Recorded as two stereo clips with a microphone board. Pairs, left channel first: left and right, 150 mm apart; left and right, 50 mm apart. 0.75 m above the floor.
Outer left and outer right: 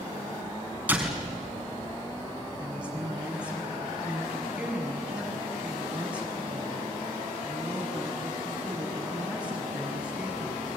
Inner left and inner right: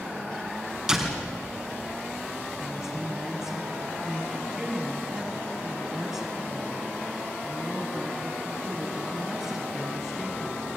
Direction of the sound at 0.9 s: 10° right (ahead or behind).